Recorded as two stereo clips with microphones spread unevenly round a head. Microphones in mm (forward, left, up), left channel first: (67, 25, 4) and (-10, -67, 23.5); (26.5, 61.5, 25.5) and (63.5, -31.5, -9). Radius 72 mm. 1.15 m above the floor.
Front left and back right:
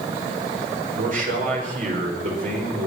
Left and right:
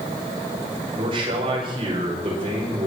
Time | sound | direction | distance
0.9 | a man speaking | 115° right | 5.5 m